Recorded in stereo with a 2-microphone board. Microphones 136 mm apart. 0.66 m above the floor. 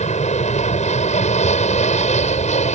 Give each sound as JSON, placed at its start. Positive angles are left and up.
{"t": 0.0, "sound": "an aircraft", "side_deg": 60}